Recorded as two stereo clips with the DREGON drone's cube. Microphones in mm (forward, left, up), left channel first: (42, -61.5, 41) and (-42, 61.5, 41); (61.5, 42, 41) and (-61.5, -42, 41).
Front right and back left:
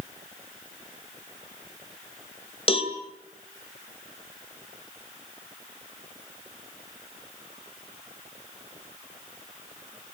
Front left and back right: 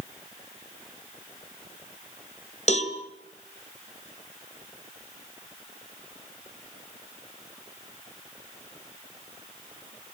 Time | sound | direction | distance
2.7 | a cowbell | 5° right | 2 m